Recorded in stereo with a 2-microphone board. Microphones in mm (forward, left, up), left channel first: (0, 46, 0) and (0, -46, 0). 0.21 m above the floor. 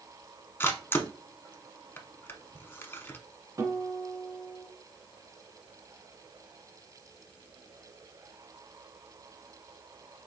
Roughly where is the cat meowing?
No cat meowing in this recording.